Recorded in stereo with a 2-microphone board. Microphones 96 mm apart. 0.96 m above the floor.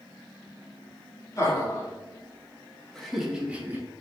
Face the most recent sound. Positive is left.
turn(degrees=-20)  # may be behind; listen again after turning